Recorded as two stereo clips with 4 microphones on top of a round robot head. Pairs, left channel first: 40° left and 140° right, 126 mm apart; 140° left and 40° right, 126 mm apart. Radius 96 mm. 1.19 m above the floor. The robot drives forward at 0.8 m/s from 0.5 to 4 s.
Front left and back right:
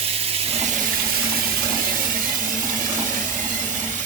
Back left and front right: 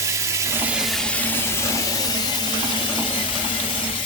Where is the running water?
105° right, 0.9 m; by 4.1 s 170° right, 3 m.